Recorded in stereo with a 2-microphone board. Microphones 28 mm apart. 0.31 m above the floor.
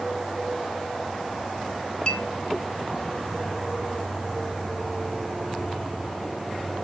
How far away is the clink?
About 0.5 m.